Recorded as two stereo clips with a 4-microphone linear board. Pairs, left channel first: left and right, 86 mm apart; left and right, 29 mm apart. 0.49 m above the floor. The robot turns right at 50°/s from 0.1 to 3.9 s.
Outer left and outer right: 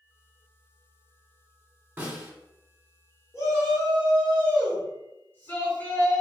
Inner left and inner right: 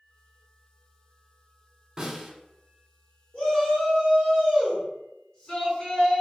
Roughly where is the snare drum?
Right.